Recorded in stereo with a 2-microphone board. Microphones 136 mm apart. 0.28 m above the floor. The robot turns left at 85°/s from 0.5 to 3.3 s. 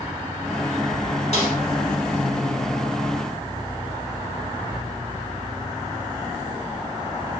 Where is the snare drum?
55° left (ahead or behind), 2.5 m; by 1.6 s 65° left (ahead or behind), 2.5 m.